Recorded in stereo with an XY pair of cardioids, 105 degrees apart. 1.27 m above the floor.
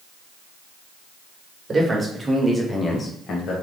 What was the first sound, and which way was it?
A man speaking, 30° right.